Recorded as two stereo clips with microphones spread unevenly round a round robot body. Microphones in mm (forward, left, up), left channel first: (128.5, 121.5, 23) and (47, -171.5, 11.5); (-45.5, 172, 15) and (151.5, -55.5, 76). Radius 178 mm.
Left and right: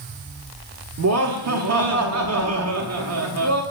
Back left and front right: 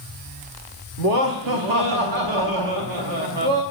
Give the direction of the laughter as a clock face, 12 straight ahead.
2 o'clock.